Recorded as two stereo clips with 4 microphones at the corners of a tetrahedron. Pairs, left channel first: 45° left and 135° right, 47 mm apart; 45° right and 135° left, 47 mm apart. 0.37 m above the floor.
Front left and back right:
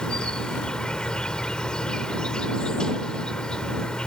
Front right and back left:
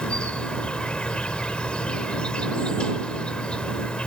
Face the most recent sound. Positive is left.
turn(degrees=-5)